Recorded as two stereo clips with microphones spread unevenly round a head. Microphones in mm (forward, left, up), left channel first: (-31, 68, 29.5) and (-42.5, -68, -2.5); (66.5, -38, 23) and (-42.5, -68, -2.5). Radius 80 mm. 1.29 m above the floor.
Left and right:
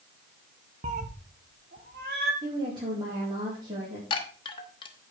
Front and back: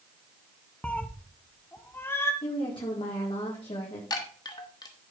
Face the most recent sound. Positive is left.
turn(degrees=50)